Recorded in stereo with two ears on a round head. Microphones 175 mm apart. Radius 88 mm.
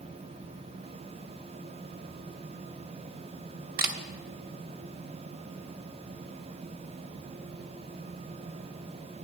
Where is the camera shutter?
50° right (ahead or behind), 1.1 m.